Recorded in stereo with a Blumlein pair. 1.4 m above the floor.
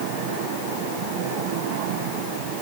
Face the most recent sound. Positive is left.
No sound to turn to.